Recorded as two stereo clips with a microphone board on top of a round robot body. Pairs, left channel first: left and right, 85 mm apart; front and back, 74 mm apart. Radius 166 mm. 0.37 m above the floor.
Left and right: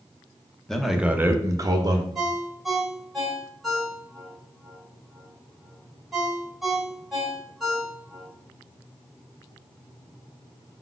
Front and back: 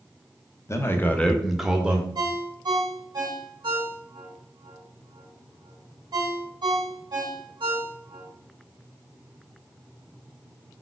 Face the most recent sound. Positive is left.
turn(degrees=180)